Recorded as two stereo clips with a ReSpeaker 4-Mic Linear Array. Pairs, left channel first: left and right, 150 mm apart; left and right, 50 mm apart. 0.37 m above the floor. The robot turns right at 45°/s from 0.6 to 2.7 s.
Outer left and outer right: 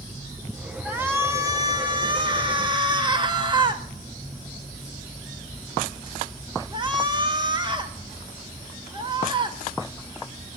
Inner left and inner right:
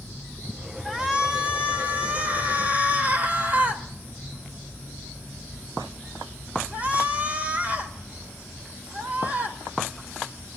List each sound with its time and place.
0.8 s a shout: 160° right, 1.4 m; by 10.6 s 75° right, 1.4 m